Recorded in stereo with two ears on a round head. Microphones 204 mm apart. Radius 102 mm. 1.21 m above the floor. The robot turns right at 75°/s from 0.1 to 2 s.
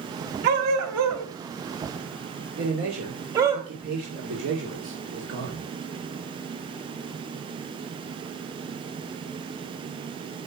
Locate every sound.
0.4 s a dog barking: 45° right (ahead or behind), 2.5 m; by 3.6 s 15° right (ahead or behind), 2.5 m
2.6 s a man speaking: 50° right (ahead or behind), 2.5 m